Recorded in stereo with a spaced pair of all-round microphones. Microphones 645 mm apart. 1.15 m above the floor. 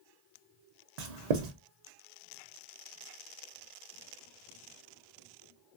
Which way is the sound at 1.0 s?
80° right.